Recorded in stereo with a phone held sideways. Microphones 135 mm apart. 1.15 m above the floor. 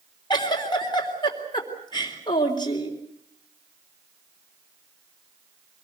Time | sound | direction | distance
0.3 | a giggle | 30° left (ahead or behind) | 3.5 m